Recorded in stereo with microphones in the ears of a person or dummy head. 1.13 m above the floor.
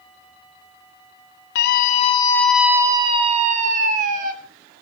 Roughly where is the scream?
Left.